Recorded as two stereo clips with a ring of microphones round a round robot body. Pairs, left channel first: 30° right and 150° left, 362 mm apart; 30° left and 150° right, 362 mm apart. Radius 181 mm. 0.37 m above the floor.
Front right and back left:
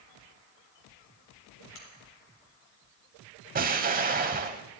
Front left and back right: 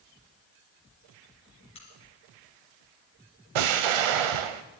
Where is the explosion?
140° right, 0.8 m.